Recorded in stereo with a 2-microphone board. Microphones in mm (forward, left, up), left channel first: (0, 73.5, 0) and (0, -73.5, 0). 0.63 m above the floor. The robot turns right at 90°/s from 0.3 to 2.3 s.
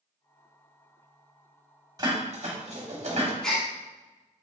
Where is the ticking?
I don't hear ticking.